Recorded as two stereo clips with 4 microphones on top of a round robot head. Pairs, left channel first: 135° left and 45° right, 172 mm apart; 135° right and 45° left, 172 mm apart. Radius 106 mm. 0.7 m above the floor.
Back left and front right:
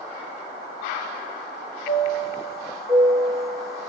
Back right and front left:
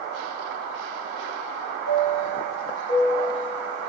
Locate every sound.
1.9 s a chime: 135° right, 1.8 m